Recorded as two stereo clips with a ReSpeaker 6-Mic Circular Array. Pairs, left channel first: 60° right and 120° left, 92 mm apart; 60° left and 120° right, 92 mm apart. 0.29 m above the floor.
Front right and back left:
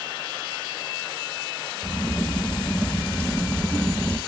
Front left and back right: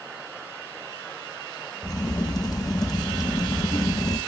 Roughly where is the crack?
Ahead.